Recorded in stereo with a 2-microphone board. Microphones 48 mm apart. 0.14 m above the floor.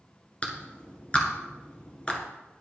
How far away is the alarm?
No alarm in this recording.